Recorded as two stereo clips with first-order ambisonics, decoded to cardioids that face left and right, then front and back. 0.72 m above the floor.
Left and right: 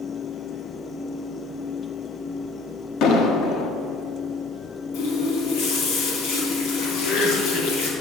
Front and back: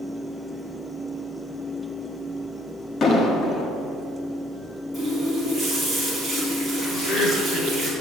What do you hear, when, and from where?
3.0 s an explosion: 60° left, 1.4 m
4.9 s a running tap: 90° left, 4.5 m
6.9 s laughter: 50° left, 3.5 m